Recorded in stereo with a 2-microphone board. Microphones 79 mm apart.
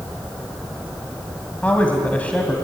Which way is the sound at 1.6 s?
20° left (ahead or behind).